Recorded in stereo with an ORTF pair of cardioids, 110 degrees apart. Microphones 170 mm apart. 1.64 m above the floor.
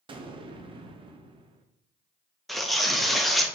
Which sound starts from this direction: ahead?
Tearing paper, at 2.5 s.